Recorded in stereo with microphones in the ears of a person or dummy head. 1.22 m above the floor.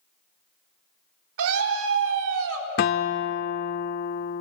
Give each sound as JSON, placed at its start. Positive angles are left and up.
{"t": 1.4, "sound": "a scream", "side_deg": -75, "distance_m": 4.0}
{"t": 2.8, "sound": "a guitar", "side_deg": 35, "distance_m": 0.5}